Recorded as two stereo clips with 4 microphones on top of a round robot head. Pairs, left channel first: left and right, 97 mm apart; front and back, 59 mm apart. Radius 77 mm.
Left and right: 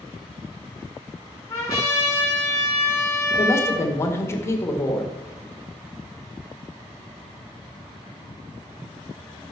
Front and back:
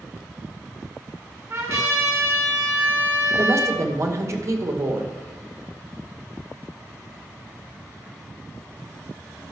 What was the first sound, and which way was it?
A trumpet, 150° left.